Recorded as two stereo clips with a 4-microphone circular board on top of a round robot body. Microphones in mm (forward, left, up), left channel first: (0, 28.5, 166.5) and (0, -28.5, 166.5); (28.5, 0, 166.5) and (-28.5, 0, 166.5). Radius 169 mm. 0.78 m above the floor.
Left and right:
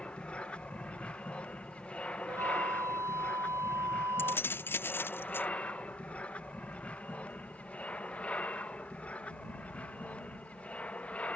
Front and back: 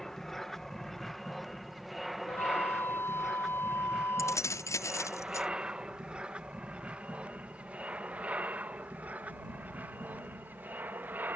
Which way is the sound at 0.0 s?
75° left.